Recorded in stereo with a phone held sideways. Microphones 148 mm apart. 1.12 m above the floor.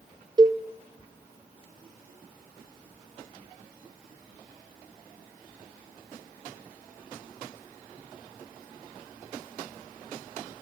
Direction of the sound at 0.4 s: 30° right (ahead or behind).